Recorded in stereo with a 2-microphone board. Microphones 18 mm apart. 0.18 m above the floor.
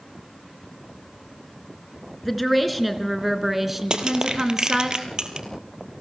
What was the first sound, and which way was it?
A woman speaking, 5° left (ahead or behind).